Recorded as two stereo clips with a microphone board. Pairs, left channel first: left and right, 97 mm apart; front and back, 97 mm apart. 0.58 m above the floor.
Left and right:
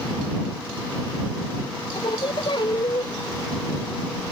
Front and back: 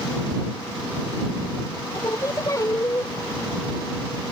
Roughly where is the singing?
Ahead left.